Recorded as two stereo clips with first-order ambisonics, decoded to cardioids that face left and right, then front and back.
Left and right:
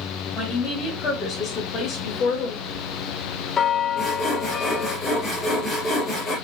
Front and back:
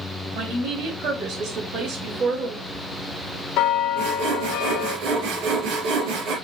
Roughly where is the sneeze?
I don't hear a sneeze.